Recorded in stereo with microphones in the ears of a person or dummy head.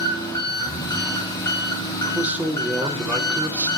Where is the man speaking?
10° right (ahead or behind), 0.6 m.